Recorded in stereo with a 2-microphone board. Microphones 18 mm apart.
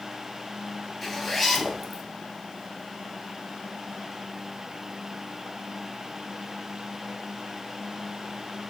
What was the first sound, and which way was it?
A zipper, 5° left (ahead or behind).